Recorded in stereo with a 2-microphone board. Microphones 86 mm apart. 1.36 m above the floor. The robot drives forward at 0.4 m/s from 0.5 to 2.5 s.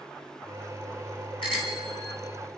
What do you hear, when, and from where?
1.4 s a bicycle bell: 85° left, 6.5 m